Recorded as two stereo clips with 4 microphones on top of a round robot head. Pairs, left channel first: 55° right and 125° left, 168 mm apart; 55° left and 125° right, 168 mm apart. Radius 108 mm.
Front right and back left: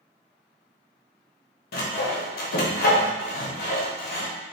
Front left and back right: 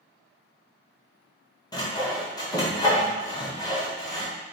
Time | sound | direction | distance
1.7 | sawing | 15° right | 0.5 m